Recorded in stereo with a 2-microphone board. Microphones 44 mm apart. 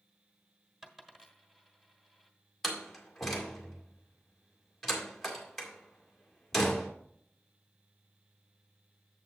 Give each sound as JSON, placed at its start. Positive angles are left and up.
{"t": 0.8, "sound": "a dropped coin", "side_deg": -10, "distance_m": 1.4}
{"t": 2.6, "sound": "a door slam", "side_deg": 5, "distance_m": 1.9}